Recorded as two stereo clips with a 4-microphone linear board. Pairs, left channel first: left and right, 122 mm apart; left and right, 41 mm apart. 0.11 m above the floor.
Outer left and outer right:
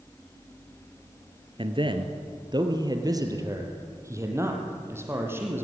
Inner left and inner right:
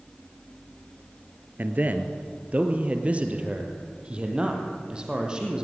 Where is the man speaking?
45° right (ahead or behind), 1.8 m; by 5.7 s 20° right (ahead or behind), 4 m.